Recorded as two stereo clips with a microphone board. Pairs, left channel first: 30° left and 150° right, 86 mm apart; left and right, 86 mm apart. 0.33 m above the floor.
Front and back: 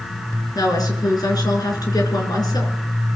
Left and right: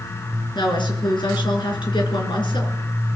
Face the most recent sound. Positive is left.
turn(degrees=70)